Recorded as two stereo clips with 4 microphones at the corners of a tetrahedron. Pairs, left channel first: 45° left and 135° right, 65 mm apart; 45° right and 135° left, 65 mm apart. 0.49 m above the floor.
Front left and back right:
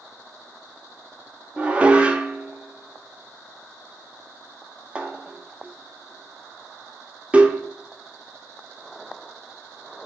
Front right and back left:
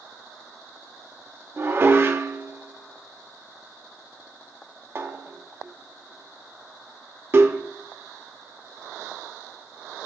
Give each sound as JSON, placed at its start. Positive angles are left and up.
{"t": 1.6, "sound": "dishes clattering", "azimuth_deg": 165, "distance_m": 0.8}